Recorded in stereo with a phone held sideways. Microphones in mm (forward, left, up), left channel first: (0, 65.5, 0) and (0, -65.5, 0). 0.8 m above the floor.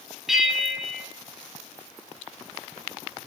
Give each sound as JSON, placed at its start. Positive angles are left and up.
{"t": 0.3, "sound": "a bell", "side_deg": 0, "distance_m": 1.9}